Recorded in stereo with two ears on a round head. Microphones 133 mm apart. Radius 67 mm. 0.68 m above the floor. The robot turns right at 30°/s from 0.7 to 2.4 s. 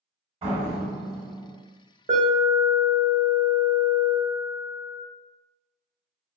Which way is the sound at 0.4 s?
35° right (ahead or behind).